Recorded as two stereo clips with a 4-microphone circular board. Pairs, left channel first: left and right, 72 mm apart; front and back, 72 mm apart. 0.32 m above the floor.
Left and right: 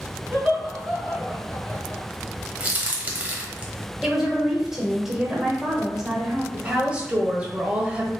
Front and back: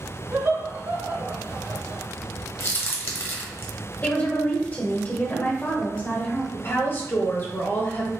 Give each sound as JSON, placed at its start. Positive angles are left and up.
{"t": 0.3, "sound": "laughter", "azimuth_deg": -160, "distance_m": 2.0}
{"t": 2.6, "sound": "a crack", "azimuth_deg": -30, "distance_m": 1.0}
{"t": 4.0, "sound": "a woman speaking", "azimuth_deg": -15, "distance_m": 0.9}
{"t": 6.5, "sound": "a woman speaking", "azimuth_deg": -30, "distance_m": 1.1}